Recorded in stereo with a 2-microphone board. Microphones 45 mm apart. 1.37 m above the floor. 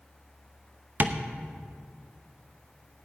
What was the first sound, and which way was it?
Tapping, 45° right (ahead or behind).